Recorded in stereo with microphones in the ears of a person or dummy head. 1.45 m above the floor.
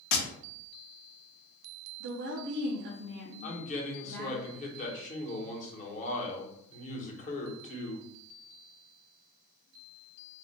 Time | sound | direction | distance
0.1 | tapping | 80° left | 0.8 m
2.0 | a woman speaking | 65° right (ahead or behind) | 0.7 m
3.4 | a man speaking | 45° left (ahead or behind) | 1.0 m